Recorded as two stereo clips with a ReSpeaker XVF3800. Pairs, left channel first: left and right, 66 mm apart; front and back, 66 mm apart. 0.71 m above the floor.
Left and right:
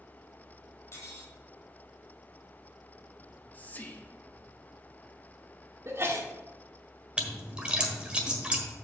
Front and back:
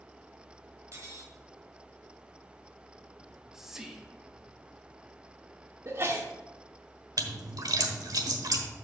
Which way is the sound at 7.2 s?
165° right.